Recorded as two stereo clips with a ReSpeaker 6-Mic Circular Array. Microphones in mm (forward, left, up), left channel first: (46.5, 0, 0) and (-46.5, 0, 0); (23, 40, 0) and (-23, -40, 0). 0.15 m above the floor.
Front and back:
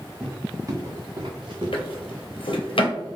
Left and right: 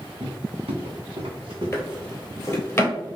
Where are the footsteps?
105° right, 1.2 m; by 2.2 s 165° right, 1.8 m.